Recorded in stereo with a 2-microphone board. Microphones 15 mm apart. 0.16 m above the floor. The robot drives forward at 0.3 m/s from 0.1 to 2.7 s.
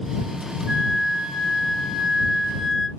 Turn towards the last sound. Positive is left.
turn(degrees=-35)  # may be behind; listen again after turning